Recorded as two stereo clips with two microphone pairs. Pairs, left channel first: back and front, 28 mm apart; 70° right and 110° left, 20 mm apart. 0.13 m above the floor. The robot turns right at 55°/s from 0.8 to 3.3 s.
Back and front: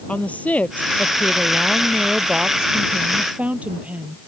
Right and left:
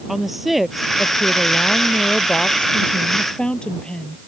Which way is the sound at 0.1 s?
165° right.